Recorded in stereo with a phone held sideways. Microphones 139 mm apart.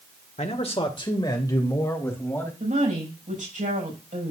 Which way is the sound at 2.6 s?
75° right (ahead or behind).